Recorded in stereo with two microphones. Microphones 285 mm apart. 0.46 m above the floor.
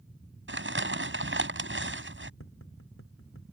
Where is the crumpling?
45° right (ahead or behind).